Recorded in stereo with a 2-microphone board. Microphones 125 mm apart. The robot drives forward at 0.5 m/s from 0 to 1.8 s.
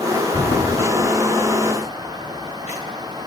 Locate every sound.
0.3 s footsteps: 45° left (ahead or behind), 1.9 m; by 3.2 s 75° left (ahead or behind), 4.5 m